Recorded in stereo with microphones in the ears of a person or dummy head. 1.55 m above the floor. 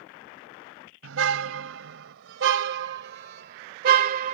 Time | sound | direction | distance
1.0 | a car horn | 80° right | ?